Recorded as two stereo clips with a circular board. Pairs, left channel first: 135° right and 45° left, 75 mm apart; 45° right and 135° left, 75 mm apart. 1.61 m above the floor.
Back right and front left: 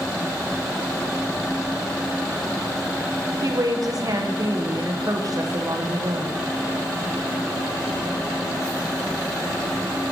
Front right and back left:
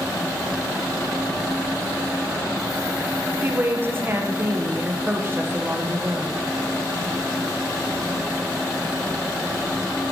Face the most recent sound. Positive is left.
turn(degrees=75)